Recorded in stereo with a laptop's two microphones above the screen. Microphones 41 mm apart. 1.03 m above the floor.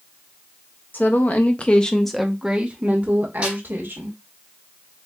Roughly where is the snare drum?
Right.